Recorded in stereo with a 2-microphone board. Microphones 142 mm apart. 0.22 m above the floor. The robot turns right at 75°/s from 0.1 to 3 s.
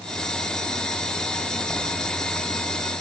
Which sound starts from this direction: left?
Writing, at 1.7 s.